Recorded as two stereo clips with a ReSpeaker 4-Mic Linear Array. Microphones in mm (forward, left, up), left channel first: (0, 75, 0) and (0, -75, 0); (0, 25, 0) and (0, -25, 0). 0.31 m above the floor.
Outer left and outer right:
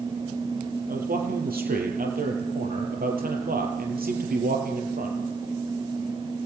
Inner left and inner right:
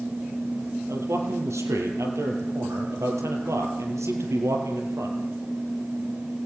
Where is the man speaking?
75° right (ahead or behind), 6.5 m.